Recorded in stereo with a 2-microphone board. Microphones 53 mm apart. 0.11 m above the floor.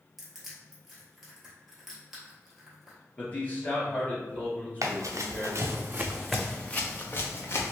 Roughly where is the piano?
No piano in this recording.